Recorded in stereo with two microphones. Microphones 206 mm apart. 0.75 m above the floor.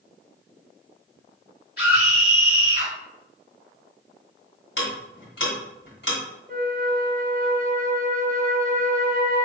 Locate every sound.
1.8 s a scream: 50° left (ahead or behind), 2 m
4.8 s ticking: 60° left (ahead or behind), 1.6 m
6.5 s a flute: 45° right (ahead or behind), 0.7 m